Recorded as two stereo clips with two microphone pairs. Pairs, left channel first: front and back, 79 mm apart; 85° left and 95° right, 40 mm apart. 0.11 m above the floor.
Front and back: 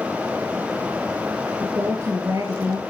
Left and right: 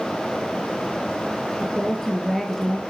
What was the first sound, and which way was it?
A woman speaking, 170° left.